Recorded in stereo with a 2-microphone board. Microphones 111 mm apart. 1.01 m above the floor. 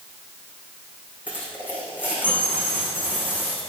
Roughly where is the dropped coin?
Centre.